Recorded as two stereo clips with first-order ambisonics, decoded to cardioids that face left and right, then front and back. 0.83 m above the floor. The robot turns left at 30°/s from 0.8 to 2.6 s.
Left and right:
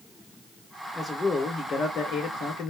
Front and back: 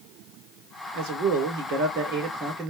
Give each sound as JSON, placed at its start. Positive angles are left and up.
{"t": 0.9, "sound": "a man speaking", "azimuth_deg": 180, "distance_m": 3.0}